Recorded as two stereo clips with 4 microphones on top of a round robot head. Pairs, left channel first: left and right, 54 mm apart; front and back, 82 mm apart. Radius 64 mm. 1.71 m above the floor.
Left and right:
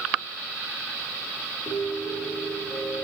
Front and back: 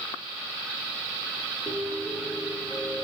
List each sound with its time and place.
1.7 s a piano: 105° left, 4 m